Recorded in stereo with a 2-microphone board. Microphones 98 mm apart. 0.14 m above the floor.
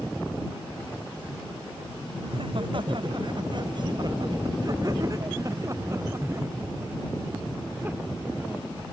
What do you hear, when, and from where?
2.2 s laughter: 60° right (ahead or behind); by 8.7 s 15° right (ahead or behind)